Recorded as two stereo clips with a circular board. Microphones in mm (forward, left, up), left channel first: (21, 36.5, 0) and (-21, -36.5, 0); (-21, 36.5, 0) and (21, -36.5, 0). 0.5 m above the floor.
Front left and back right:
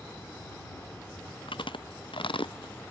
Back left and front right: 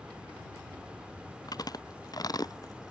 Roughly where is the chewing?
Left.